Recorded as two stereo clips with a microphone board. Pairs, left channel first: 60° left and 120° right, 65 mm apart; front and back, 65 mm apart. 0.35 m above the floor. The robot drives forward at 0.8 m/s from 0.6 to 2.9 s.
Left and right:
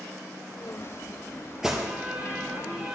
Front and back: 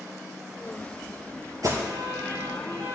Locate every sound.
1.6 s an alarm: 155° left, 4.5 m; by 3.0 s 160° left, 5.5 m